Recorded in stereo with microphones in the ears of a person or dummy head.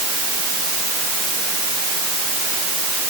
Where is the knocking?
No knocking in this recording.